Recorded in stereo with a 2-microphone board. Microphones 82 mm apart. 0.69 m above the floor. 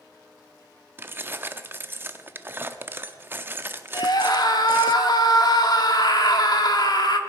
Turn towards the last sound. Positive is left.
turn(degrees=55)  # may be behind; listen again after turning